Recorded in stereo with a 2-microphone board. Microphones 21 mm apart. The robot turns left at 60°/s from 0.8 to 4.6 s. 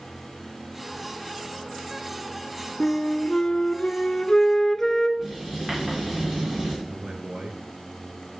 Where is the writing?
20° right (ahead or behind), 8 m.